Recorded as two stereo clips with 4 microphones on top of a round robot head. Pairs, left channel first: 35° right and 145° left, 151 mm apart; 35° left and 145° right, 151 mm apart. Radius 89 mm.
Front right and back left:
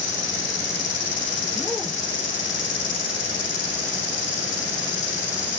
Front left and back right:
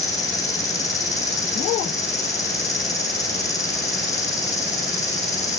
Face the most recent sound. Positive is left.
turn(degrees=-35)